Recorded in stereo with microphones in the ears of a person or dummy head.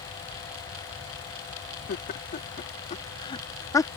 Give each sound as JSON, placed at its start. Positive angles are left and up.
{"t": 1.9, "sound": "laughter", "side_deg": 55}